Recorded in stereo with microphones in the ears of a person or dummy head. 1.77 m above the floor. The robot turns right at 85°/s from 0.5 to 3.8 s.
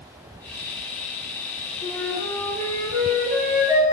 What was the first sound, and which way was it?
A flute, 160° left.